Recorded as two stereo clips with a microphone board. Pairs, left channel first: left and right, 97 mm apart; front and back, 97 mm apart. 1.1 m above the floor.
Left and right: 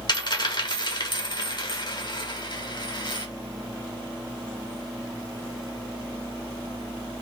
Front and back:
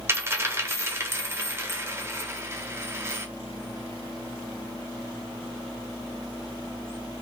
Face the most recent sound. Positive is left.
turn(degrees=120)